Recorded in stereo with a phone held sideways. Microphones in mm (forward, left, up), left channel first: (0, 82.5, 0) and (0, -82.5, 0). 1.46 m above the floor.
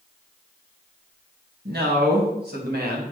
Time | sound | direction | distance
1.6 | a man speaking | 85° right | 1.9 m